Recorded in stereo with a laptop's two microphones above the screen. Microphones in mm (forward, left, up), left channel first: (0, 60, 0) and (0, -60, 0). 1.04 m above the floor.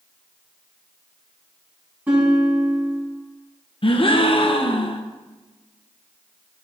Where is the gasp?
50° left (ahead or behind), 0.5 m.